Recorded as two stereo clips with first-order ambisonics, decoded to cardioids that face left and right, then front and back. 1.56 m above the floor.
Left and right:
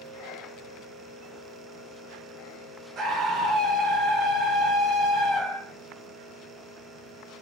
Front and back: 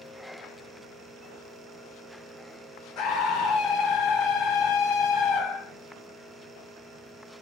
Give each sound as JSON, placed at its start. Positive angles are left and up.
{"t": 3.0, "sound": "a scream", "azimuth_deg": -35, "distance_m": 1.3}